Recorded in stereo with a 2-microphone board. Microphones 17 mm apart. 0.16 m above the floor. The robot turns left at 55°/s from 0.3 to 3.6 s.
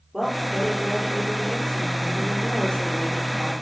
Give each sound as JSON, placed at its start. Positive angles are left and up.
{"t": 0.1, "sound": "a woman speaking", "azimuth_deg": -130, "distance_m": 4.0}